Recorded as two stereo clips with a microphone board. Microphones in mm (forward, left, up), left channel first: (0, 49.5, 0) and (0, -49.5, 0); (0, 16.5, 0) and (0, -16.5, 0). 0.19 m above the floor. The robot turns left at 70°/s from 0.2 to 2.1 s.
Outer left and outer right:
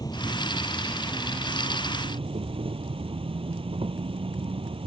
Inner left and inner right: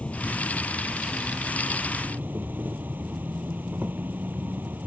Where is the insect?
45° left; by 4.9 s 85° right.